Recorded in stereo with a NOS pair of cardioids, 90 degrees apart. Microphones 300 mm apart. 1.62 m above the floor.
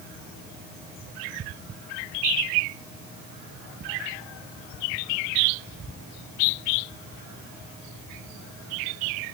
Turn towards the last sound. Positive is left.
No sound to turn to.